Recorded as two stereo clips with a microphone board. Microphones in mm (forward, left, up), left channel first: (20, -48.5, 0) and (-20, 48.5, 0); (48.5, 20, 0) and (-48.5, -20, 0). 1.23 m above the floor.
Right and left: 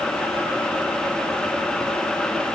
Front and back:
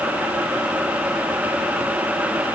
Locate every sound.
Only background noise.